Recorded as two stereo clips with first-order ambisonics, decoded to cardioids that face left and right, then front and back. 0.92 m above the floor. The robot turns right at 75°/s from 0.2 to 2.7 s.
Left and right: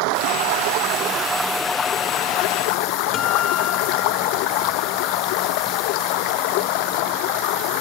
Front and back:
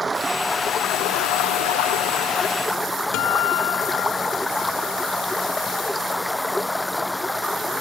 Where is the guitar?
35° left.